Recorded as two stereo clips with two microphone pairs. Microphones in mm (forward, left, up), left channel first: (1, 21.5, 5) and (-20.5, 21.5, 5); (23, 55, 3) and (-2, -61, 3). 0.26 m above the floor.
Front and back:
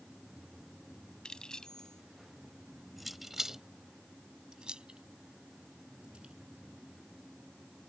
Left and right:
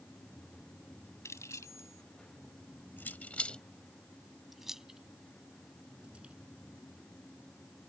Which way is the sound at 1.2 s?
20° left.